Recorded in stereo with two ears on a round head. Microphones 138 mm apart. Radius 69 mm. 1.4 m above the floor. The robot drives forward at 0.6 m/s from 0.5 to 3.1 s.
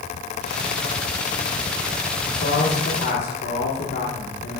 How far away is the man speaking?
About 1.6 m.